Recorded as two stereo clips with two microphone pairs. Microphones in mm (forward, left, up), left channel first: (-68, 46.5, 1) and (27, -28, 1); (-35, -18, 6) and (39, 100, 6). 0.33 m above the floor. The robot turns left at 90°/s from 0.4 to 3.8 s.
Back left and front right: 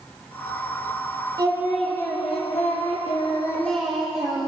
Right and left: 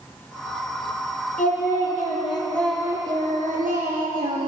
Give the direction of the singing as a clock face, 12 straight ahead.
3 o'clock.